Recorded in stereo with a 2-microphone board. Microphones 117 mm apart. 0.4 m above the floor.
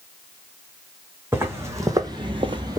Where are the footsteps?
20° right (ahead or behind), 1.5 m; by 2.8 s 30° right (ahead or behind), 0.6 m.